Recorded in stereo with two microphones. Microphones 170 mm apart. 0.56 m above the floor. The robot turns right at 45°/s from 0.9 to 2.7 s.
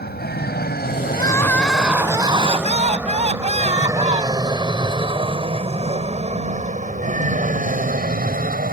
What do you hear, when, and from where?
0.0 s an aircraft: 70° left (ahead or behind); by 8.7 s 60° right (ahead or behind)
1.1 s crying: 150° left; by 4.5 s 135° right